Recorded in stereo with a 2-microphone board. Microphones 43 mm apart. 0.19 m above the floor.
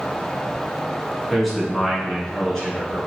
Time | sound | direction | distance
1.3 | a man speaking | centre (ahead or behind) | 1.5 m